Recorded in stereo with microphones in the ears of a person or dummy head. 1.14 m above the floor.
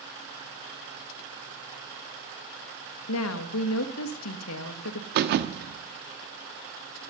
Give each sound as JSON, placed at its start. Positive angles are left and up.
{"t": 3.1, "sound": "a woman speaking", "side_deg": 75, "distance_m": 1.1}
{"t": 5.2, "sound": "a thud", "side_deg": -50, "distance_m": 0.9}